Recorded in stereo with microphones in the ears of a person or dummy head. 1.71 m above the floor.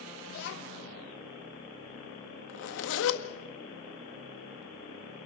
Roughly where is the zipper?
Left.